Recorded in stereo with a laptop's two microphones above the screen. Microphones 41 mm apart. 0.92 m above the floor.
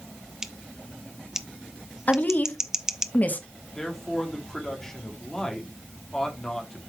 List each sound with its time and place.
0.4 s scissors: 15° right (ahead or behind), 0.6 m
2.1 s a woman speaking: 40° left (ahead or behind), 1.3 m
3.8 s a man speaking: 10° left (ahead or behind), 2.5 m